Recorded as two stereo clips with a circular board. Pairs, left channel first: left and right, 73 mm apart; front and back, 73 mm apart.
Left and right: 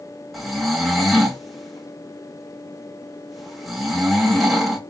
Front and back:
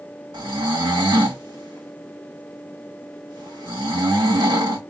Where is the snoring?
Straight behind, 1.9 m.